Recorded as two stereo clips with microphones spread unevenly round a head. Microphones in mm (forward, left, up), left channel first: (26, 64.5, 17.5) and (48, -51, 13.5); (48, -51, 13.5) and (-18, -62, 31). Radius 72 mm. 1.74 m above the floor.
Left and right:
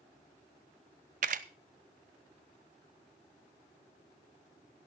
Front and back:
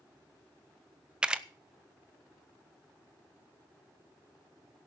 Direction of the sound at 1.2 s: 105° right.